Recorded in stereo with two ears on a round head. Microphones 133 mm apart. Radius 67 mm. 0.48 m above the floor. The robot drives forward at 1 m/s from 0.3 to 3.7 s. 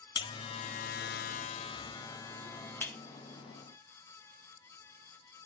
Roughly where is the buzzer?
Left.